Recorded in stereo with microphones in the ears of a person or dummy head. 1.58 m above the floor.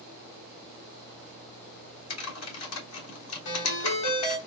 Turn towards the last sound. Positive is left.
turn(degrees=65)  # may be behind; listen again after turning